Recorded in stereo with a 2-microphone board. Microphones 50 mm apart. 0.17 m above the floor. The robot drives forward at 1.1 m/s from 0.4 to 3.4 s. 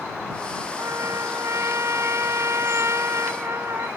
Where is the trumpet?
70° right (ahead or behind); by 3.9 s 65° right (ahead or behind).